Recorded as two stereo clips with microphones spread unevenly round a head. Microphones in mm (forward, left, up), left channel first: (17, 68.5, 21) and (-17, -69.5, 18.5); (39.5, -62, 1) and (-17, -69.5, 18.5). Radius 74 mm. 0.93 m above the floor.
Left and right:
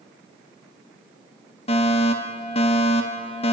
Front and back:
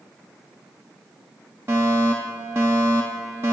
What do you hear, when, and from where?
1.7 s a fire alarm: 120° left, 2.5 m